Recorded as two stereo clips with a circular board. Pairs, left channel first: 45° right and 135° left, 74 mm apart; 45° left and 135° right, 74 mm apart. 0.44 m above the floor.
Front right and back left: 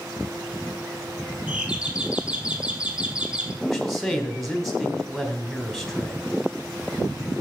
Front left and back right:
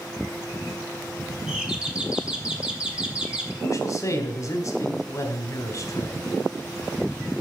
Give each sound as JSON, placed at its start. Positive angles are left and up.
{"t": 1.5, "sound": "a doorbell", "azimuth_deg": 175, "distance_m": 1.2}
{"t": 3.6, "sound": "a man speaking", "azimuth_deg": 45, "distance_m": 1.6}